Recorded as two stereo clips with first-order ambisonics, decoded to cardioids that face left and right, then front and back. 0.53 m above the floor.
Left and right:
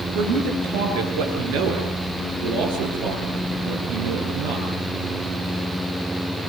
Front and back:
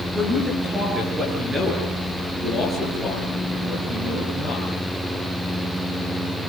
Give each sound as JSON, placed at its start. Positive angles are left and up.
{"t": 0.1, "sound": "a man speaking", "azimuth_deg": -105, "distance_m": 8.5}